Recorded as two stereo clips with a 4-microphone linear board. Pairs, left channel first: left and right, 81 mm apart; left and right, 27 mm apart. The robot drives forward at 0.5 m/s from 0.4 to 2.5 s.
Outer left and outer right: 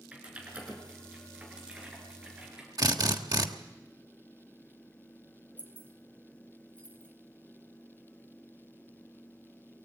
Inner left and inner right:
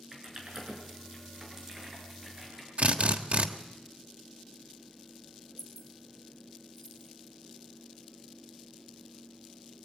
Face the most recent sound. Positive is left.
turn(degrees=15)  # may be behind; listen again after turning